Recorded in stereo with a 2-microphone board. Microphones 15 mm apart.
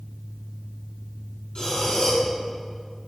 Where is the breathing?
70° left (ahead or behind), 6 m.